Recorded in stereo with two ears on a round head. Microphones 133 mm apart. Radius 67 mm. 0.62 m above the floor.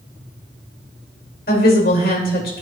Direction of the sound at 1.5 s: 70° left (ahead or behind).